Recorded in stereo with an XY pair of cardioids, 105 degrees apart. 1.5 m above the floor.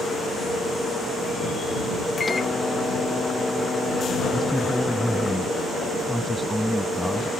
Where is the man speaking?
5° right.